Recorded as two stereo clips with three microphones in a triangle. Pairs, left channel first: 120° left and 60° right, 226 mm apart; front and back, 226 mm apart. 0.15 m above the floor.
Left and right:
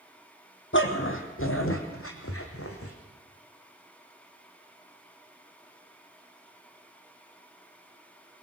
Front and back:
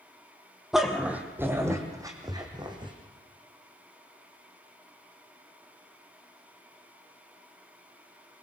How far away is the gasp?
I don't hear a gasp.